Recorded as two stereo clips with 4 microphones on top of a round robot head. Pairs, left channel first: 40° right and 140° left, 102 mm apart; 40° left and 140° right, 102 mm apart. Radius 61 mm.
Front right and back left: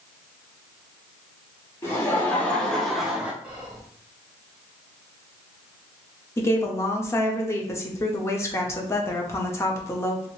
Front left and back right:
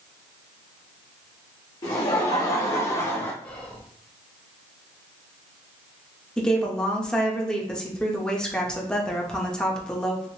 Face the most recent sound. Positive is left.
turn(degrees=-35)